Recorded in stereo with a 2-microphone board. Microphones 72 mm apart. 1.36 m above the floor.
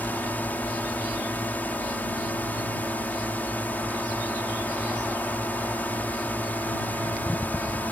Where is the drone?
20° left (ahead or behind).